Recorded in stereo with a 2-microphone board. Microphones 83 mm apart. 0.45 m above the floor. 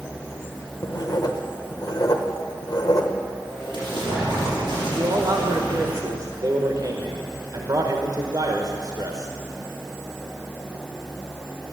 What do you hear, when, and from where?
0.8 s writing: 50° left (ahead or behind), 1.2 m
3.5 s an explosion: 55° right (ahead or behind), 6 m
5.0 s a man speaking: 50° right (ahead or behind), 1.2 m